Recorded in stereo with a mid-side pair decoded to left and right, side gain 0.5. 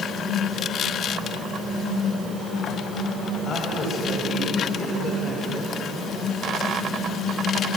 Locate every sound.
3.5 s a man speaking: 50° left, 8 m; by 5.8 s 45° left, 5 m